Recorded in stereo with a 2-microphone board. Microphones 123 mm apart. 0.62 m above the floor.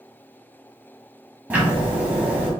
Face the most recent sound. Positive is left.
turn(degrees=-15)  # may be behind; listen again after turning